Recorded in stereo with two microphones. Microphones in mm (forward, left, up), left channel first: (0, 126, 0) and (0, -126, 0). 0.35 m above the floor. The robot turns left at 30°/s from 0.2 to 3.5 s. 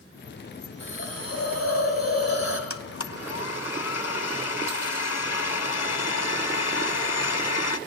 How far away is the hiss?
About 3 m.